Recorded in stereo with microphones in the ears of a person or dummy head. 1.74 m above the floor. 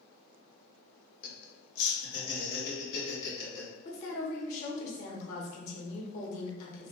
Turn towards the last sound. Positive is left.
turn(degrees=50)  # may be behind; listen again after turning